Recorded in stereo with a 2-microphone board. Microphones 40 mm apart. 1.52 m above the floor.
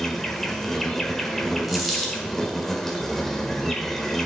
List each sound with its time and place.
0.0 s an insect: 10° left (ahead or behind), 1.4 m
1.7 s a dropped coin: centre (ahead or behind), 2.5 m